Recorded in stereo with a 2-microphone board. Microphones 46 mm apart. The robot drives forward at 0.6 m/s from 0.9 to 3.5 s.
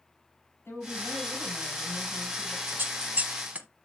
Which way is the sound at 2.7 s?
50° right (ahead or behind).